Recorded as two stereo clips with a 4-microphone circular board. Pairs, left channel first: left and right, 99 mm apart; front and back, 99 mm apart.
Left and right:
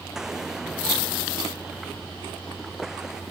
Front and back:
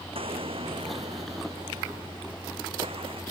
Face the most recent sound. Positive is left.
turn(degrees=-175)